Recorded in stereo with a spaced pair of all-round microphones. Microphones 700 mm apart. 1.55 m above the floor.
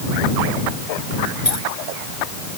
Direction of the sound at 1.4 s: 70° left (ahead or behind).